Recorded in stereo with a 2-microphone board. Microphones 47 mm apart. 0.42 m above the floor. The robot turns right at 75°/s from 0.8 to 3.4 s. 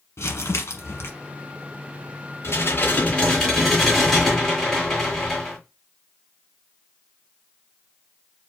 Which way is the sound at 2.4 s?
105° left.